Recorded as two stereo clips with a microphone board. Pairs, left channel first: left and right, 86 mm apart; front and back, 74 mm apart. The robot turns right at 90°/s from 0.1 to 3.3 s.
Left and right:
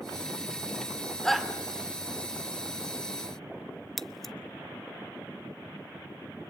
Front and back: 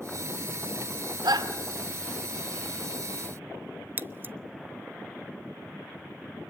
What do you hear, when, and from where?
1.2 s a shout: 170° left, 2 m; by 1.5 s 165° right, 2 m
4.0 s scissors: 175° left, 0.7 m